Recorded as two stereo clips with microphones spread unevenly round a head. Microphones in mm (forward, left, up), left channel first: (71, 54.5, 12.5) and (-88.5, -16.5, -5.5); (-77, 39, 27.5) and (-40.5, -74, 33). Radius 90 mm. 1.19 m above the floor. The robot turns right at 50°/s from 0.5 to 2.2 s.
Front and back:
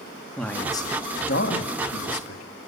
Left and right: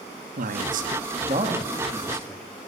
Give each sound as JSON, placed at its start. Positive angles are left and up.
{"t": 0.4, "sound": "a man speaking", "azimuth_deg": -60, "distance_m": 2.0}